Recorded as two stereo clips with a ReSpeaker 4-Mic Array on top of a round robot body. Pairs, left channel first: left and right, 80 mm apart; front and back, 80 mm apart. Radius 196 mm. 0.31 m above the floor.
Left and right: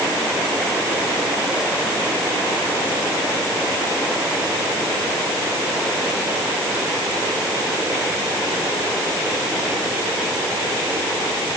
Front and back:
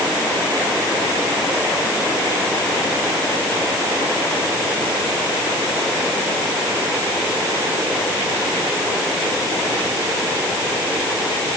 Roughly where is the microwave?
No microwave in this recording.